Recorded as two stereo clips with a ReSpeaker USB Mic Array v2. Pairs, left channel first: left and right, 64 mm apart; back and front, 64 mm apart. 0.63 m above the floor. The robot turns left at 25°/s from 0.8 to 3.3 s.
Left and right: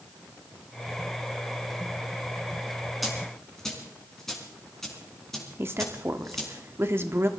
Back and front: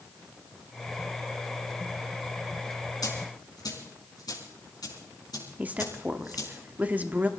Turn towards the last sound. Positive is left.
turn(degrees=-55)